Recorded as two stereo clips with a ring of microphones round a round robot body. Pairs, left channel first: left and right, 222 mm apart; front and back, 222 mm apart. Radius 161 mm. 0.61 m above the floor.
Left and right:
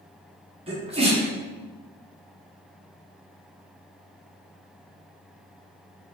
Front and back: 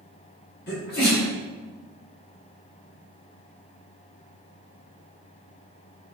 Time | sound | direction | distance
0.7 | a sneeze | 30° right | 1.6 m